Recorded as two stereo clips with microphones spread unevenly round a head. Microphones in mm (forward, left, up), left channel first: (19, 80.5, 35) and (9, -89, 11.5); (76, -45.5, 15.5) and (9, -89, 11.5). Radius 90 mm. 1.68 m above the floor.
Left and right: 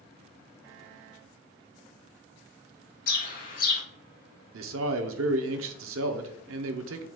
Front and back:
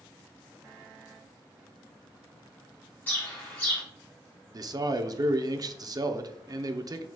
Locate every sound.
3.1 s a bird: 100° left, 1.1 m
4.5 s a man speaking: 110° right, 0.7 m